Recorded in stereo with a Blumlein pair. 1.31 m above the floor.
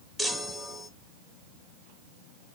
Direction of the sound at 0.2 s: 10° left.